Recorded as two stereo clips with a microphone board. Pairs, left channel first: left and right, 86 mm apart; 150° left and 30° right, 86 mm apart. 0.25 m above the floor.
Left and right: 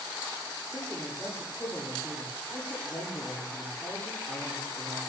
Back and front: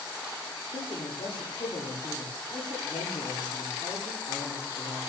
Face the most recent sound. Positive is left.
turn(degrees=155)